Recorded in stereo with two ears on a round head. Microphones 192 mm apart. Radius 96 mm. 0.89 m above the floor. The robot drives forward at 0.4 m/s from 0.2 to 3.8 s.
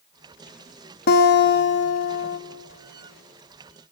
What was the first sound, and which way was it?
A guitar, 45° left (ahead or behind).